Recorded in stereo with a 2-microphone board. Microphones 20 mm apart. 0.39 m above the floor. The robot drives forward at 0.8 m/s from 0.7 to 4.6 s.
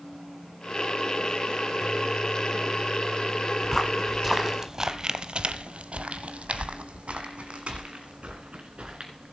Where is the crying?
I don't hear crying.